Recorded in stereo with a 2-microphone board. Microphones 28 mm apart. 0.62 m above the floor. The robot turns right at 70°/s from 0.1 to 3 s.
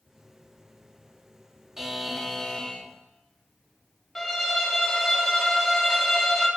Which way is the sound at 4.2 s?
10° left (ahead or behind).